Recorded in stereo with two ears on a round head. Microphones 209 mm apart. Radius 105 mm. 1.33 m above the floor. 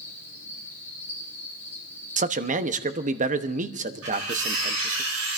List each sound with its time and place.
0.0 s an insect: 10° left (ahead or behind), 8.5 m
2.2 s a man speaking: 35° right (ahead or behind), 1.0 m
4.0 s cutlery clinking: 65° right (ahead or behind), 10 m